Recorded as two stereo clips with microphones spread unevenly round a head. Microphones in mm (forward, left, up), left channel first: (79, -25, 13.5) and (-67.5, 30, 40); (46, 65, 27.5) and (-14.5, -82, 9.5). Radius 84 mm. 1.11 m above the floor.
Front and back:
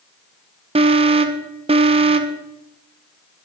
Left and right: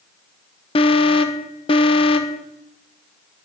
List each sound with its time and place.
0.8 s an alarm: 115° left, 1.1 m